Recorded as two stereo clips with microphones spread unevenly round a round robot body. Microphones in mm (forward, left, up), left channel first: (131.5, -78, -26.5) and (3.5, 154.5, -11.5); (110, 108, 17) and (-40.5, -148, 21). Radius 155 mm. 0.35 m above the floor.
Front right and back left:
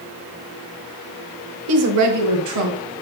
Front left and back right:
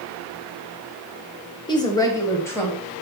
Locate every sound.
1.7 s a woman speaking: 130° left, 1.1 m; by 2.8 s 140° left, 2 m